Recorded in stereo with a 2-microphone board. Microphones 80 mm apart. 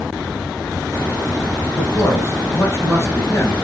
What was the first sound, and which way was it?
A man speaking, 30° left (ahead or behind).